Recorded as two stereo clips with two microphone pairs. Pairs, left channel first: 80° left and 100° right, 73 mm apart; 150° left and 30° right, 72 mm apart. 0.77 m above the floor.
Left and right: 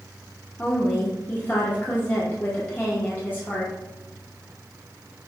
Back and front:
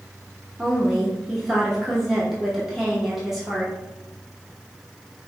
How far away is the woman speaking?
About 0.9 m.